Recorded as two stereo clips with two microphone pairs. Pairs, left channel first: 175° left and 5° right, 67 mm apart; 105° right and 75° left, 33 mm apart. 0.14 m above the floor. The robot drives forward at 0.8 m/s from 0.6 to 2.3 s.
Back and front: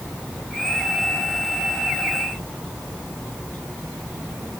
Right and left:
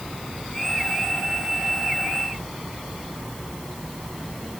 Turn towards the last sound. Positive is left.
No sound to turn to.